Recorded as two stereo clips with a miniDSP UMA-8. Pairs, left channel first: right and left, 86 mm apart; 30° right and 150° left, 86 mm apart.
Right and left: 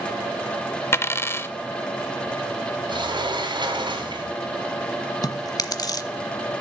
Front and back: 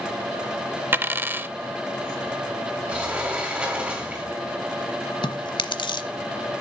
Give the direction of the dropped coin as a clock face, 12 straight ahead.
5 o'clock.